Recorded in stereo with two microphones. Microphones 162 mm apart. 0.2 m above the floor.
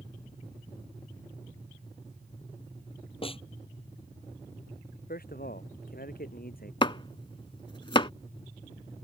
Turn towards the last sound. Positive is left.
turn(degrees=30)  # may be behind; listen again after turning